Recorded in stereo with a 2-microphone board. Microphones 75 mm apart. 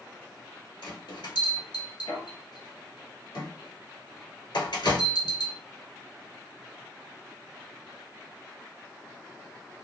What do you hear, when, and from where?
0.8 s a bell: 85° left, 1.2 m